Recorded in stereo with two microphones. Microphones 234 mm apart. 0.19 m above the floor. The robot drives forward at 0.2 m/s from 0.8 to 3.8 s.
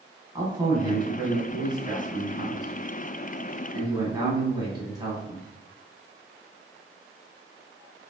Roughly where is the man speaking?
Centre.